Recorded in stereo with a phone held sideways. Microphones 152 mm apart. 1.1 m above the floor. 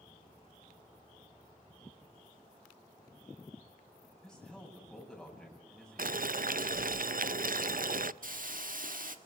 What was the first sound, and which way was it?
A man speaking, 5° left (ahead or behind).